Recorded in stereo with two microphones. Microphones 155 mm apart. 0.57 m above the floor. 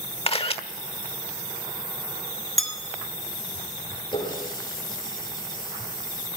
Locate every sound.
0.3 s a camera shutter: 40° left (ahead or behind), 1.3 m
2.6 s a bell: centre (ahead or behind), 2 m
4.1 s a running tap: 30° left (ahead or behind), 7 m